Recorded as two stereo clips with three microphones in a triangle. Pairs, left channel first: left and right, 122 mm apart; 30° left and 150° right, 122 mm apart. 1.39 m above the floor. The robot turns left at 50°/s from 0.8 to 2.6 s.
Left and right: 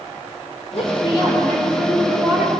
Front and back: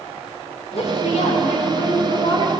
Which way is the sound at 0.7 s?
60° left.